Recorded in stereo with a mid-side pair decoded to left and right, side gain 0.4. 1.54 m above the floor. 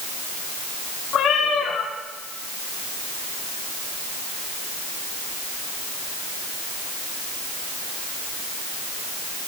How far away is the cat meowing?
About 6.5 m.